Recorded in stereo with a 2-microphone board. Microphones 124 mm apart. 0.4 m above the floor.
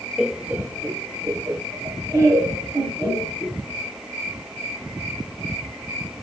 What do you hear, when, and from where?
0.2 s laughter: 5° right (ahead or behind), 1.1 m; by 3.6 s 25° right (ahead or behind), 3.5 m